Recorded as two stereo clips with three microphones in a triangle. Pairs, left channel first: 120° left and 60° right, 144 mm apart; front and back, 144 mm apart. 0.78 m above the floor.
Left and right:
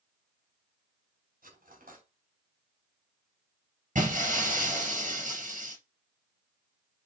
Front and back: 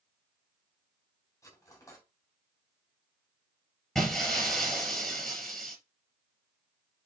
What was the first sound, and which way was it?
Cutlery clinking, 70° right.